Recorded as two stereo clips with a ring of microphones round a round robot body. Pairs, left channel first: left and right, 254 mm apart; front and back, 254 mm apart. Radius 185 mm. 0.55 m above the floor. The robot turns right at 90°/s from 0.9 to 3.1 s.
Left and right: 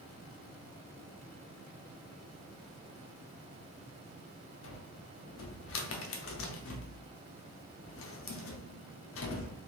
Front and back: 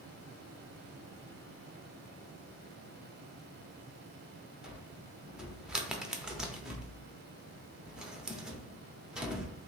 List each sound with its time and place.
4.6 s a cupboard door: 95° left, 0.6 m